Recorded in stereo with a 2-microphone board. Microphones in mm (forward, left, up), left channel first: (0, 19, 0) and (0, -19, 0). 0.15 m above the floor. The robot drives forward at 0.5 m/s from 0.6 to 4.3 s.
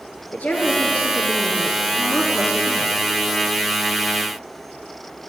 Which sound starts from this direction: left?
A woman speaking, at 0.3 s.